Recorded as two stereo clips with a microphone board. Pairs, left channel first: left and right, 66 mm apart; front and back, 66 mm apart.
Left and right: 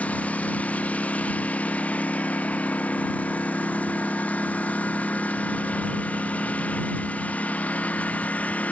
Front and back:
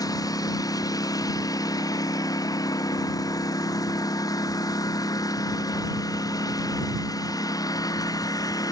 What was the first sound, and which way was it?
A lawn mower, 20° left.